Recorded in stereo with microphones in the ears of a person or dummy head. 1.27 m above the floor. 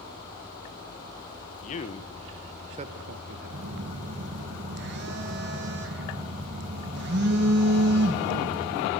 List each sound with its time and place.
1.6 s a man speaking: 45° left (ahead or behind), 0.9 m; by 4.1 s 75° right (ahead or behind), 1.6 m
3.5 s a phone buzzing: 55° right (ahead or behind), 1.4 m